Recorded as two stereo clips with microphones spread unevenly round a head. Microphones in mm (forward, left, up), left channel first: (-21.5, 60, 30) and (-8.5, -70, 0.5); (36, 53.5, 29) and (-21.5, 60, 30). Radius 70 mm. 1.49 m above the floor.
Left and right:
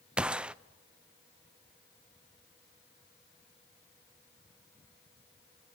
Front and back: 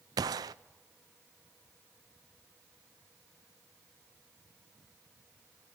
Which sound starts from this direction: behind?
A gunshot, at 0.2 s.